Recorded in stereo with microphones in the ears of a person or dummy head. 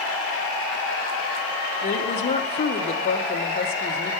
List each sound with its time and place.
1.8 s a woman speaking: 35° left (ahead or behind), 1.1 m